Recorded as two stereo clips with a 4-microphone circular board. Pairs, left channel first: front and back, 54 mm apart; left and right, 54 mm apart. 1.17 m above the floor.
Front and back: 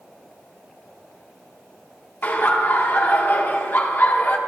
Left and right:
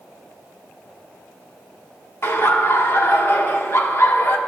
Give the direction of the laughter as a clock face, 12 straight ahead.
10 o'clock.